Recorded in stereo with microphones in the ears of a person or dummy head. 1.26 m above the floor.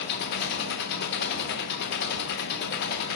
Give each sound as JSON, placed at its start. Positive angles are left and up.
{"t": 0.0, "sound": "an engine running", "side_deg": 60, "distance_m": 0.8}